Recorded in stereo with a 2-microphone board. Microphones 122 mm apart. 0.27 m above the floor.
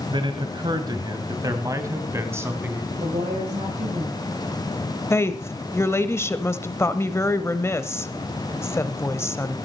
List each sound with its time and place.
0.1 s a man speaking: 45° right (ahead or behind), 1.6 m; by 2.8 s 15° right (ahead or behind), 2.5 m
2.9 s a woman speaking: 60° right (ahead or behind), 6.5 m
5.1 s a woman speaking: 20° left (ahead or behind), 0.9 m